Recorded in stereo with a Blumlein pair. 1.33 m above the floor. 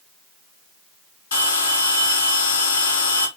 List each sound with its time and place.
1.3 s a bell: 65° left, 4.5 m